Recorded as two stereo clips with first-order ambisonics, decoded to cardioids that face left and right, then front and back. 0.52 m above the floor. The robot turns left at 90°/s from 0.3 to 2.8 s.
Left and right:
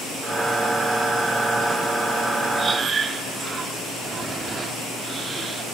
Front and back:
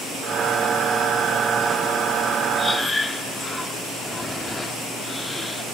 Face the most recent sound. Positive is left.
turn(degrees=-65)